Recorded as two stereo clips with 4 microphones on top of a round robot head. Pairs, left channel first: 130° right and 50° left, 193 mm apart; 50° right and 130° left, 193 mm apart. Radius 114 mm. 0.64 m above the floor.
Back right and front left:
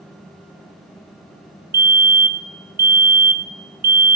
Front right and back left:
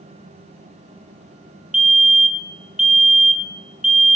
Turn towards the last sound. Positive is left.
turn(degrees=45)